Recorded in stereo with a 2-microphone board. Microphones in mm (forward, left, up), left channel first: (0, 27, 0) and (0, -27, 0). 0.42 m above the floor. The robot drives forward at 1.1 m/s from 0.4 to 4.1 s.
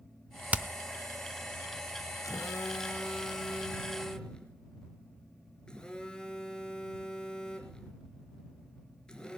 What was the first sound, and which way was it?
Hammering, 25° right (ahead or behind).